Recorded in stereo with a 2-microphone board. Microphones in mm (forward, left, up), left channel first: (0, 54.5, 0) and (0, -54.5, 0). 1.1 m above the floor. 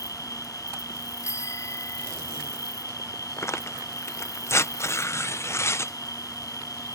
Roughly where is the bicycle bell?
Left.